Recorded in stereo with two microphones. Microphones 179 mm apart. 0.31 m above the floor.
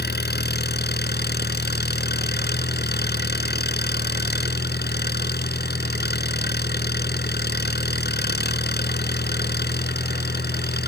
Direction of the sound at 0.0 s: 65° left (ahead or behind).